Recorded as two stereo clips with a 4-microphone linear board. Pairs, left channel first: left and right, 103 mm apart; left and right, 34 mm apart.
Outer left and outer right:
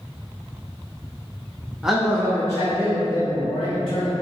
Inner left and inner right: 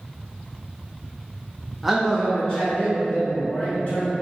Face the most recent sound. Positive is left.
turn(degrees=55)  # may be behind; listen again after turning